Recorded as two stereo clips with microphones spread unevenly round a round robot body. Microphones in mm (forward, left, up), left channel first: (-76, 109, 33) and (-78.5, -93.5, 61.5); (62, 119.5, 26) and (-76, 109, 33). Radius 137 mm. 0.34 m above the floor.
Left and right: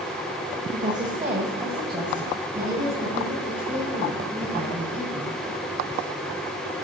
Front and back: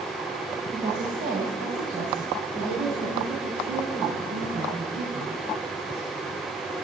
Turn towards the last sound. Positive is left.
turn(degrees=-175)